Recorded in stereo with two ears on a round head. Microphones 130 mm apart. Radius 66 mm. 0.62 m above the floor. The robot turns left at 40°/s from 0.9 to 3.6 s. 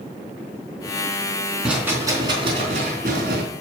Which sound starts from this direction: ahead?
A rattle, at 1.6 s.